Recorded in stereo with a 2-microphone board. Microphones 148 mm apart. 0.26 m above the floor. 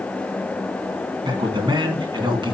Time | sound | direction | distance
1.2 | a man speaking | 30° right (ahead or behind) | 3 m